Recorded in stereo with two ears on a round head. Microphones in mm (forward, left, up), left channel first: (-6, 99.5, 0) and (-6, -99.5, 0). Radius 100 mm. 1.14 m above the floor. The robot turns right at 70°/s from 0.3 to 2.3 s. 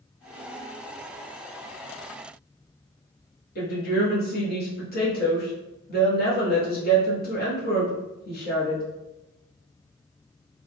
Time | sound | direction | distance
3.5 | a woman speaking | 45° left (ahead or behind) | 1.5 m